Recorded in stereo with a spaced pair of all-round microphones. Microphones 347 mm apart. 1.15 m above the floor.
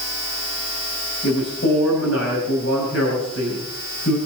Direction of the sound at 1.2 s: 45° left (ahead or behind).